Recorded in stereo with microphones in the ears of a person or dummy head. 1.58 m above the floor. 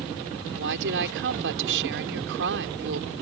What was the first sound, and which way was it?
A woman speaking, 65° right (ahead or behind).